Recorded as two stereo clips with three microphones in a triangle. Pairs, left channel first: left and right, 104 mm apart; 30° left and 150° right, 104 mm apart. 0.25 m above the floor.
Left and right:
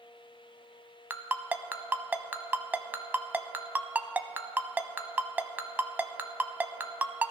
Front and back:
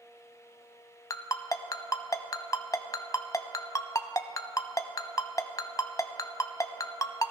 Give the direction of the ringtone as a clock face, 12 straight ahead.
1 o'clock.